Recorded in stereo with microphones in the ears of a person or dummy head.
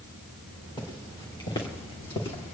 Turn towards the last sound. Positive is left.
turn(degrees=30)  # may be behind; listen again after turning